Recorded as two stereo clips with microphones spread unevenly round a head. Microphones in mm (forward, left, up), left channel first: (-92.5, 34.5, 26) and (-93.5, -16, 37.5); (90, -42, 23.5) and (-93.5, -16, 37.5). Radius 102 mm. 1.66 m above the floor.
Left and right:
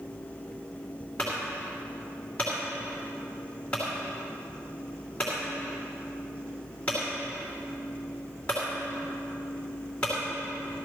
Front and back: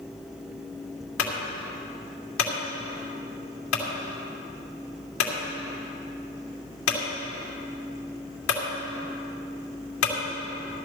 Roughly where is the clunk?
Ahead.